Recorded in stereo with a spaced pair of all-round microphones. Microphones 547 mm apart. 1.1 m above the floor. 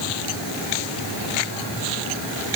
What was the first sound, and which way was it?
Only background noise.